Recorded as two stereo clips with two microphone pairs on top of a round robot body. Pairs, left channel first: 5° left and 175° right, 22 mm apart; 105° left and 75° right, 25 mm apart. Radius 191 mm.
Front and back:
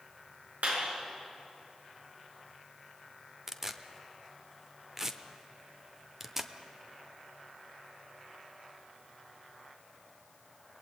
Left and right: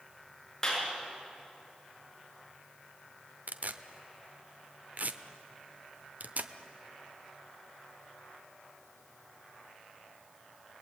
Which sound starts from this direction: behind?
A clap, at 0.6 s.